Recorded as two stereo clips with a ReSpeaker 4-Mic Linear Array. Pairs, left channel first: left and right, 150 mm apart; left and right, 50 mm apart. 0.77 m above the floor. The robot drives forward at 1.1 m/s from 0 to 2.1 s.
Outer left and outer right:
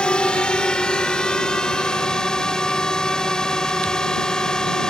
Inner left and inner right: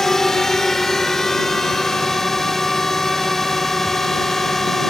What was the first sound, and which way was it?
A drone, 5° left (ahead or behind).